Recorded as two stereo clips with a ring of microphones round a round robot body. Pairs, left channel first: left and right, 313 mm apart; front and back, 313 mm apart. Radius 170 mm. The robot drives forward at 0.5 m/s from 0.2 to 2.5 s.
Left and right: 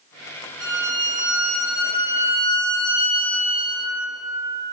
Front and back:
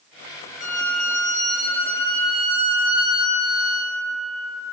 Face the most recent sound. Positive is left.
turn(degrees=-135)